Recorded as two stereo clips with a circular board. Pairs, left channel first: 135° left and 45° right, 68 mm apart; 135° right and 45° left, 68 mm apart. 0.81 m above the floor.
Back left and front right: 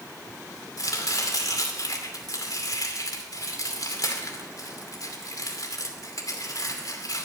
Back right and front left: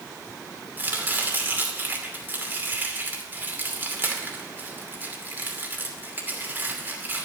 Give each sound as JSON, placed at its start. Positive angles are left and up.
{"t": 0.8, "sound": "chopping", "azimuth_deg": 105, "distance_m": 2.5}